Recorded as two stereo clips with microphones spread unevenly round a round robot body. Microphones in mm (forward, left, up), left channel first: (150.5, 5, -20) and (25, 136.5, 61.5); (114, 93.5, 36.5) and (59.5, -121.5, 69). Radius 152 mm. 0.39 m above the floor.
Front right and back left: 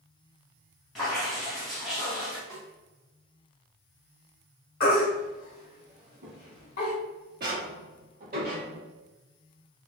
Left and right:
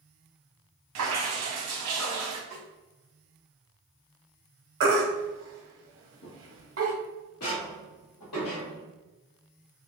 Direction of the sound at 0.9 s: 140° right.